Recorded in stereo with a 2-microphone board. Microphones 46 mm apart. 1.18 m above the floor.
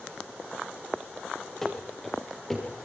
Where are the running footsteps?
5° left (ahead or behind), 8.5 m; by 2.7 s centre (ahead or behind), 7.5 m.